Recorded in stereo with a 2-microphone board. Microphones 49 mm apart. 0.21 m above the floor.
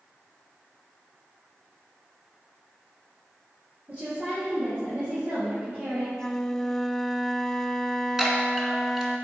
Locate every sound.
3.9 s a woman speaking: 35° right (ahead or behind), 4.5 m
6.1 s a flute: 10° left (ahead or behind), 0.6 m
8.2 s a chime: 10° right (ahead or behind), 2 m